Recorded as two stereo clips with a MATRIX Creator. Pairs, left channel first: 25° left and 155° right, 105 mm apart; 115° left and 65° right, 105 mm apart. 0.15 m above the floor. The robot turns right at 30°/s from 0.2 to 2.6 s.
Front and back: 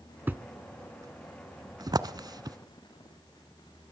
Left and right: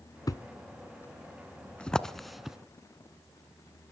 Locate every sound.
0.3 s a thud: 140° left, 0.7 m; by 2.6 s 150° right, 0.7 m